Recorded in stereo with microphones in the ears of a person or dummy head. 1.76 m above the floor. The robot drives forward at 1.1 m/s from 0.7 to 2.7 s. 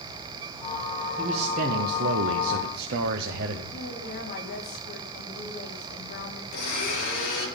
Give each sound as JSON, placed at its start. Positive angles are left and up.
{"t": 1.2, "sound": "a man speaking", "side_deg": -30, "distance_m": 1.5}
{"t": 3.7, "sound": "a woman speaking", "side_deg": 45, "distance_m": 3.0}
{"t": 6.5, "sound": "a blender", "side_deg": 55, "distance_m": 6.5}